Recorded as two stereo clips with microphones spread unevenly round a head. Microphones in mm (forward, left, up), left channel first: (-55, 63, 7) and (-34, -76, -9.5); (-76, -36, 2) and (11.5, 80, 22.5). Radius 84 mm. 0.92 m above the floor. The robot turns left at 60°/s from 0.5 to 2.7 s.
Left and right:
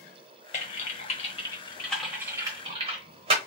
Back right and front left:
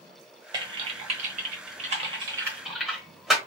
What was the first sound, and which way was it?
Typing on a keyboard, 100° left.